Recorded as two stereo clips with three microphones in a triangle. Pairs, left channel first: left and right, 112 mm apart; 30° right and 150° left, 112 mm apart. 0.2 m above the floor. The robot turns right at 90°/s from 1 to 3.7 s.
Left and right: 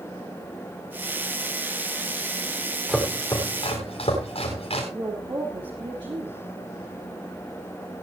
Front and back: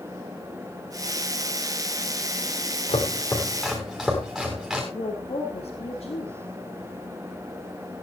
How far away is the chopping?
About 7 m.